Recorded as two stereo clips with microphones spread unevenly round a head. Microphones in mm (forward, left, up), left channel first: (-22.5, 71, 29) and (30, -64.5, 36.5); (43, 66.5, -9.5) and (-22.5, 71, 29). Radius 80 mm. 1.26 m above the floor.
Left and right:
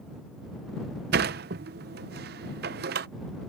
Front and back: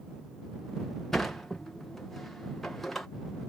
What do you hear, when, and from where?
1.1 s a sliding door: 90° right